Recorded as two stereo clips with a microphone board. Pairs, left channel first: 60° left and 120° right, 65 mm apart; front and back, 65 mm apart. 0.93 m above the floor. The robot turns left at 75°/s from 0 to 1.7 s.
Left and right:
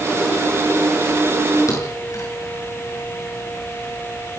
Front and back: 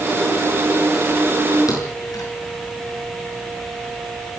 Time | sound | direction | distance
1.7 | a thud | 25° left | 7.5 m